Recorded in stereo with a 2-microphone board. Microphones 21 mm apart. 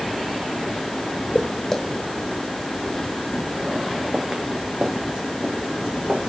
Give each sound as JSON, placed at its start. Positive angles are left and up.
{"t": 1.4, "sound": "footsteps", "side_deg": 25, "distance_m": 1.4}